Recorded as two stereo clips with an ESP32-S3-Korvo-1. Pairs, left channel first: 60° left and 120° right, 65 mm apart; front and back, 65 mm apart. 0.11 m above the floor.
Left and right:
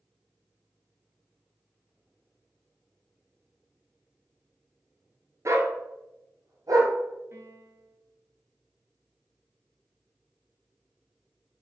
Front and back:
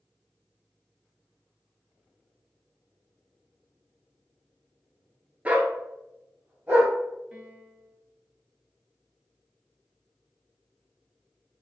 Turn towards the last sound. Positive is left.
turn(degrees=-115)